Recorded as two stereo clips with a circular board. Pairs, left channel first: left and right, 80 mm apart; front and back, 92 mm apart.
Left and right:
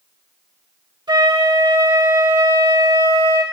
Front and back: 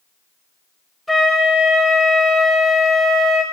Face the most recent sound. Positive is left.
turn(degrees=-90)